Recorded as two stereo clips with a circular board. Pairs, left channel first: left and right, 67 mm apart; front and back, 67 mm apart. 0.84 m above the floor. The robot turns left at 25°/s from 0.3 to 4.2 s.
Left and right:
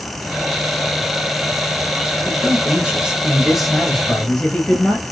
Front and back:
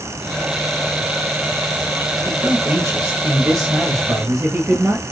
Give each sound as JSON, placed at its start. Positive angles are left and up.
{"t": 2.2, "sound": "a man speaking", "azimuth_deg": -145, "distance_m": 1.0}